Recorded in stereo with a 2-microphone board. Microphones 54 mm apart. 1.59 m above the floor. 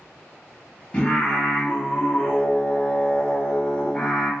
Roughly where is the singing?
Left.